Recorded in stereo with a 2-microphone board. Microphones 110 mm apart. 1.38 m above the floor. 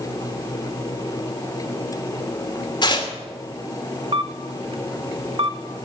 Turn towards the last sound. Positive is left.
turn(degrees=-55)  # may be behind; listen again after turning